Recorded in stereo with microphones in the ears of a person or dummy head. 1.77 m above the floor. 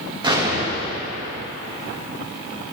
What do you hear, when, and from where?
0.2 s an explosion: 25° right (ahead or behind), 1.0 m